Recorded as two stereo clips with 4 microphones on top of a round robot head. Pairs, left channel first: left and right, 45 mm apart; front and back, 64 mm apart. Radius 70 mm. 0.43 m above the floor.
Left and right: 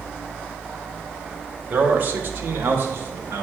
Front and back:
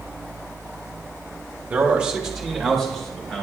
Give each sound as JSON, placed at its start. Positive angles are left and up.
{"t": 1.7, "sound": "a man speaking", "azimuth_deg": -120, "distance_m": 1.1}